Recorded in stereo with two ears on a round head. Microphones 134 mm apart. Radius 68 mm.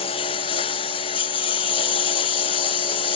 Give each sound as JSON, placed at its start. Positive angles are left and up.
{"t": 0.0, "sound": "a lawn mower", "side_deg": 35}